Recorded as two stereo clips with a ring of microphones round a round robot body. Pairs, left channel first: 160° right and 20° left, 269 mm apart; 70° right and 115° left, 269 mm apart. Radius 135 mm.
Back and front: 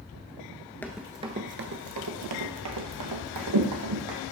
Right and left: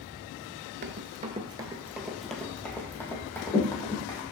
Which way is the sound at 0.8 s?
125° left.